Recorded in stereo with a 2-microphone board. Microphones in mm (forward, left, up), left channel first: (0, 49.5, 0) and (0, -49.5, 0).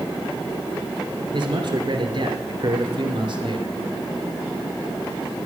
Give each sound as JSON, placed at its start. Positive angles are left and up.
{"t": 1.3, "sound": "a man speaking", "side_deg": -50, "distance_m": 2.5}